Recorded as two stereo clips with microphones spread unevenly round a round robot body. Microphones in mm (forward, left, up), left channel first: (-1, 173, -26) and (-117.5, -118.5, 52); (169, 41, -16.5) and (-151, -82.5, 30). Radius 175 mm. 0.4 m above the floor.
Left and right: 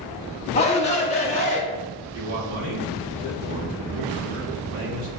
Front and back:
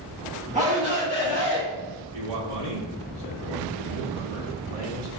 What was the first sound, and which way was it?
A shout, 130° left.